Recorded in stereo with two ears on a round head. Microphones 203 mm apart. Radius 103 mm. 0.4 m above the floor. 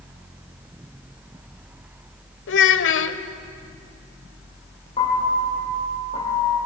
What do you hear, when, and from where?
2.5 s a child speaking: 60° left (ahead or behind), 1.2 m
5.0 s a piano: 25° left (ahead or behind), 8 m